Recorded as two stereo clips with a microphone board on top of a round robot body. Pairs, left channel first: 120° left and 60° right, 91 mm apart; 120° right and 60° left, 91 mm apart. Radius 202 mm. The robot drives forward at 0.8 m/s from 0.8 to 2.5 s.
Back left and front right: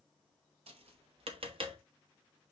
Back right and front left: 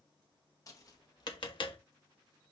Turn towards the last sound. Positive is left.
turn(degrees=-110)